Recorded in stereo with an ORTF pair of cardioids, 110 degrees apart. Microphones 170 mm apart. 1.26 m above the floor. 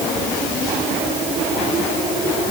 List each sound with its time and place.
Only background noise.